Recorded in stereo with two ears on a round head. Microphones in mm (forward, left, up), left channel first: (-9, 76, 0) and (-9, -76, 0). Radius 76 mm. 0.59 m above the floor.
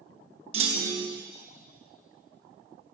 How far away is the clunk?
About 1.0 m.